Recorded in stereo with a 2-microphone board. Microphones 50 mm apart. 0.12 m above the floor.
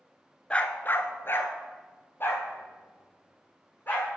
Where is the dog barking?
20° left (ahead or behind), 0.7 m; by 4.1 s 40° left (ahead or behind), 3.5 m.